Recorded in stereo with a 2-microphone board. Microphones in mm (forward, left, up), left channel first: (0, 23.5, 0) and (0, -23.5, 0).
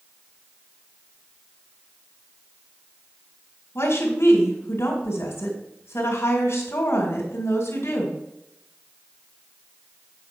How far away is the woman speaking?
About 2 m.